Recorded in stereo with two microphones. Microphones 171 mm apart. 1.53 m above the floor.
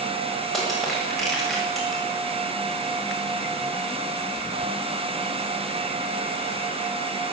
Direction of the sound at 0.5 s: Centre (ahead or behind).